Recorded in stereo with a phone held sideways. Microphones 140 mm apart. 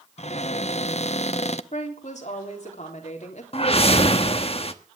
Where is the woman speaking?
55° left (ahead or behind), 3.5 m.